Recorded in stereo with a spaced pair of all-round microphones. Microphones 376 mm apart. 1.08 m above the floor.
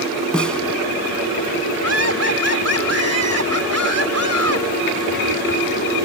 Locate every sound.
0.3 s a snare drum: centre (ahead or behind)
1.8 s laughter: 40° right (ahead or behind)